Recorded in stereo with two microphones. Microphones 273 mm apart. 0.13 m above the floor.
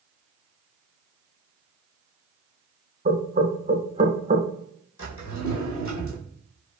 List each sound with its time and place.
3.0 s knocking: 30° right (ahead or behind), 0.9 m
5.0 s a drawer: 80° left, 1.4 m